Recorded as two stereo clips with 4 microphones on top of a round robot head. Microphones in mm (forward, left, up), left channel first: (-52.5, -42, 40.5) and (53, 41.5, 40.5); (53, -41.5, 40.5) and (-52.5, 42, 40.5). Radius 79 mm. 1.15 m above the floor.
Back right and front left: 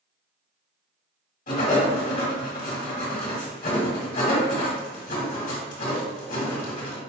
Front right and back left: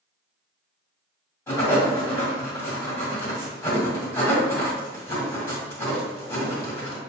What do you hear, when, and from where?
1.5 s writing: 110° right, 1.9 m